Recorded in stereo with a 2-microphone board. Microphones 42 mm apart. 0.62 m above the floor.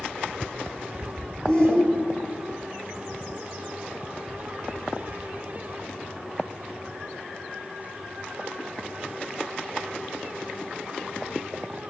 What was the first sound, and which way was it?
A shout, 15° left (ahead or behind).